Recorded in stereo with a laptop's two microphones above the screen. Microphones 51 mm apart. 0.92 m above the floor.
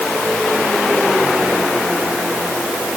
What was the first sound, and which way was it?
Only background noise.